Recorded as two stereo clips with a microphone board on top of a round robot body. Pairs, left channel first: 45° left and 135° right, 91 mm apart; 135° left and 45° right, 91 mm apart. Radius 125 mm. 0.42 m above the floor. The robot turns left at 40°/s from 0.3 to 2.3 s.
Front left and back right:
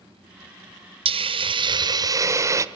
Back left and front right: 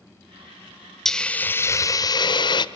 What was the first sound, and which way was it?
A hiss, 140° right.